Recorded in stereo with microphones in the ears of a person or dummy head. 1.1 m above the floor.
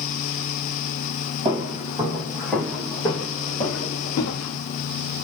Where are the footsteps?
20° right (ahead or behind), 1.9 m; by 4.6 s 55° left (ahead or behind), 1.9 m.